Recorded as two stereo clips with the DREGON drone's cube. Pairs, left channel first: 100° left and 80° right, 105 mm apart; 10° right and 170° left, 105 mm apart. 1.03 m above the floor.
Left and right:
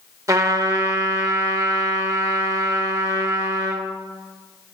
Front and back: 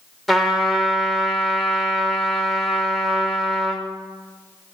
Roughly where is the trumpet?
Right.